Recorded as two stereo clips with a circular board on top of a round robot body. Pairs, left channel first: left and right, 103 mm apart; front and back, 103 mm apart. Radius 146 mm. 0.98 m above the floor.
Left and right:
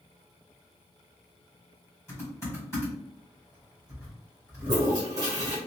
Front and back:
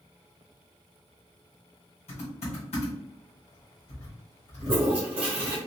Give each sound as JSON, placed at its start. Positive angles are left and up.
{"t": 2.1, "sound": "typing on a keyboard", "azimuth_deg": 25, "distance_m": 2.0}
{"t": 4.6, "sound": "a toilet flushing", "azimuth_deg": -145, "distance_m": 1.1}